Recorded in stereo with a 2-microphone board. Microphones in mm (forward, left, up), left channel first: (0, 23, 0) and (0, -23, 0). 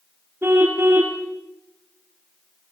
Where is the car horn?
55° right (ahead or behind), 4.5 m.